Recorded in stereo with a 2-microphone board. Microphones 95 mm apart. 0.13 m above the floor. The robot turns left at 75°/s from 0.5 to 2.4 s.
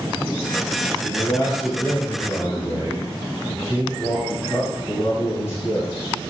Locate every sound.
1.0 s a man speaking: 140° left, 1.2 m; by 6.1 s 40° left, 1.2 m